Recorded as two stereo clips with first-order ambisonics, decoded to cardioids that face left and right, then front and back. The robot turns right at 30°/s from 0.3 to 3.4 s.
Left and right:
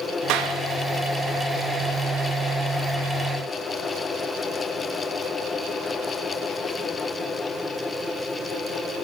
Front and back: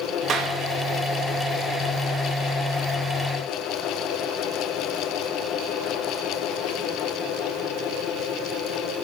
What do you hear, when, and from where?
0.3 s a clap: 125° right, 2.5 m; by 0.6 s 115° right, 2.5 m